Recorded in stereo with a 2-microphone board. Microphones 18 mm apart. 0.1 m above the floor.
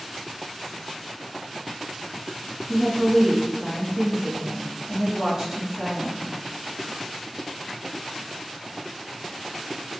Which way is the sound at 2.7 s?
25° right (ahead or behind).